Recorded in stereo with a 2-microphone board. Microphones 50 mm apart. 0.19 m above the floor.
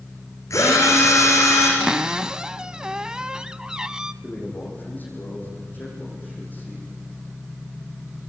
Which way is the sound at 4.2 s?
35° left (ahead or behind).